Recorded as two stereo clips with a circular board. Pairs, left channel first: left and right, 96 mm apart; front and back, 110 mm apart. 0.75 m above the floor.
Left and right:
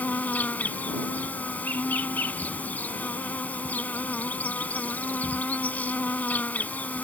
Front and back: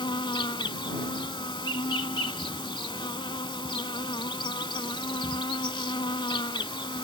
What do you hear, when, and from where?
0.0 s an insect: 20° left